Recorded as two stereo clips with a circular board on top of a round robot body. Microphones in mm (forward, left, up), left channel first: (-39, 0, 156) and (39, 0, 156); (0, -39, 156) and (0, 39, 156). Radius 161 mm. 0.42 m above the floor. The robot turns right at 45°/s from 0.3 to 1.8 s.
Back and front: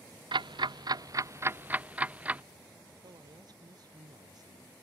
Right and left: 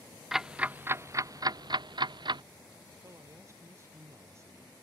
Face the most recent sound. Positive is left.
turn(degrees=35)